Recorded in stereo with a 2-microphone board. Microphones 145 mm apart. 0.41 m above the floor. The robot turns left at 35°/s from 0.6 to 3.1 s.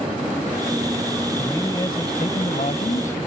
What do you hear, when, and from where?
1.4 s a man speaking: 160° left; by 3.2 s 100° left